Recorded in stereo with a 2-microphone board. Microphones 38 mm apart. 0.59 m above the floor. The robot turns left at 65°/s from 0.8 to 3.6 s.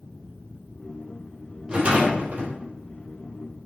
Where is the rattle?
30° right, 3 m; by 2.5 s 80° right, 3 m.